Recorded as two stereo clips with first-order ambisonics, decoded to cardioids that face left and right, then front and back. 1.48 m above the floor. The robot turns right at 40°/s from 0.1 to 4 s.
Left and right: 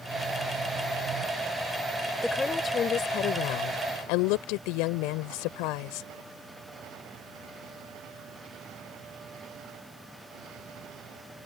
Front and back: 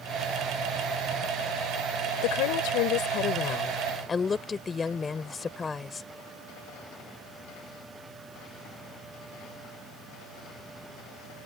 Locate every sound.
2.2 s a woman speaking: 5° left; by 6.1 s 75° left